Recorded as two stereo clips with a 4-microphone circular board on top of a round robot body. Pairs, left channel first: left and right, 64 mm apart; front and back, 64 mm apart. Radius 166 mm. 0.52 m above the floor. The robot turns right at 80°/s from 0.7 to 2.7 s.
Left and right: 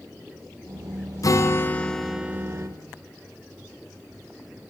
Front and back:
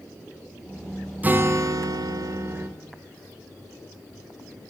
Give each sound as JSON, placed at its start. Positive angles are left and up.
{"t": 1.2, "sound": "a guitar", "azimuth_deg": 115, "distance_m": 0.6}